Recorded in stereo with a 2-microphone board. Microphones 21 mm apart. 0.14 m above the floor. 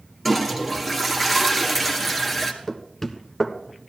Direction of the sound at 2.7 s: 15° left (ahead or behind).